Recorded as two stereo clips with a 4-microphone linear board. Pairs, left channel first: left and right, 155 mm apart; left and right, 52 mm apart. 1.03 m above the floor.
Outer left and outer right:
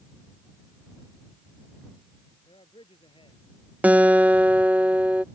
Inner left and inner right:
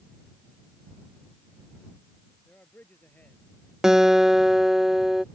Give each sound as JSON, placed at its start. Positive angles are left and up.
{"t": 2.5, "sound": "a man speaking", "side_deg": 35}
{"t": 3.8, "sound": "a guitar", "side_deg": -10}